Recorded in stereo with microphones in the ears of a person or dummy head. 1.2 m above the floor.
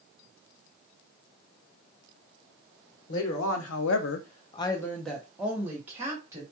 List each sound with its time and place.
3.1 s a woman speaking: 65° left (ahead or behind), 0.9 m; by 6.4 s 20° right (ahead or behind), 1.5 m